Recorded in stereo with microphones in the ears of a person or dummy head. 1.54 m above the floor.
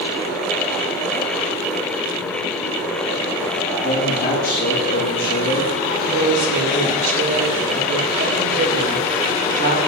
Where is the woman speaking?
40° right (ahead or behind), 6 m.